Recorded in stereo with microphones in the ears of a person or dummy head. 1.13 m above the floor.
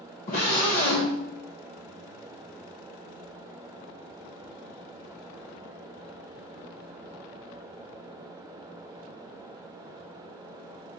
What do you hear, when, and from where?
0.3 s a scream: 45° left (ahead or behind), 1.5 m